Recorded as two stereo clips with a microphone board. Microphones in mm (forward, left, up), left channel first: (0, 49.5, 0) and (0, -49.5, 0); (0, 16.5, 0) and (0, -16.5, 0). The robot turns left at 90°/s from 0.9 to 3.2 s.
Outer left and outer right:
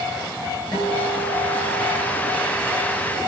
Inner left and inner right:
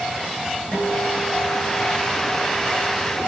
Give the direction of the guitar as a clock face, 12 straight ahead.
7 o'clock.